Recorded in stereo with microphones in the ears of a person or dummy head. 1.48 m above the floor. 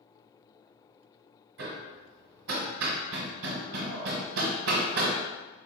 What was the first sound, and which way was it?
Hammering, 80° right.